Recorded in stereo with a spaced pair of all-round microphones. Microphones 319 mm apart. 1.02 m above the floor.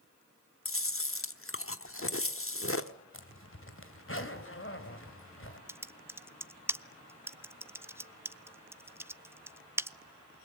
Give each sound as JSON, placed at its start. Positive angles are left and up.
{"t": 0.7, "sound": "chewing", "side_deg": 45, "distance_m": 1.1}
{"t": 3.1, "sound": "a zipper", "side_deg": 45, "distance_m": 2.5}
{"t": 5.7, "sound": "typing on a keyboard", "side_deg": -10, "distance_m": 0.5}